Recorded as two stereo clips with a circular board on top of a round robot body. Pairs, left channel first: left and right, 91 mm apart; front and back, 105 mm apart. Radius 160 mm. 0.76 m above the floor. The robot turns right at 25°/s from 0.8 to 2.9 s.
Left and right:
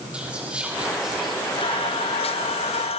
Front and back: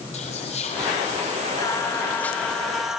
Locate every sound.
0.1 s whispering: 10° right, 2 m; by 1.4 s 5° left, 2 m
1.6 s singing: 60° left, 1.0 m; by 3.0 s 95° left, 1.0 m